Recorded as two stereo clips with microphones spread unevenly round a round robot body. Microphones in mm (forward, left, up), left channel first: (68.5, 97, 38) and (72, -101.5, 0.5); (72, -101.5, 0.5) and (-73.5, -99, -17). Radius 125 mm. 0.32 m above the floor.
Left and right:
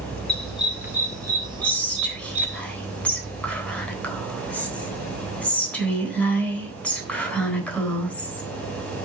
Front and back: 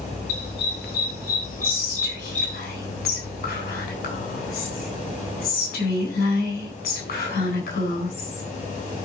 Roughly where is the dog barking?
Ahead.